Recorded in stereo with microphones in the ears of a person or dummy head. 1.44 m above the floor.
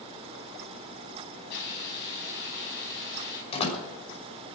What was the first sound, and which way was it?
A hiss, 65° left (ahead or behind).